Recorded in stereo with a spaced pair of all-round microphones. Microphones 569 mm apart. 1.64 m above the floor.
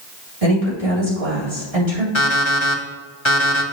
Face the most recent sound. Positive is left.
turn(degrees=55)  # may be behind; listen again after turning